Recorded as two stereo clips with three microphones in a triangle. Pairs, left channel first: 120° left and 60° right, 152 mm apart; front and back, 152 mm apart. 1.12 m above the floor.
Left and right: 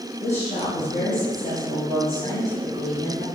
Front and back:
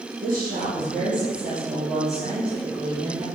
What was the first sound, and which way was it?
A woman speaking, 160° left.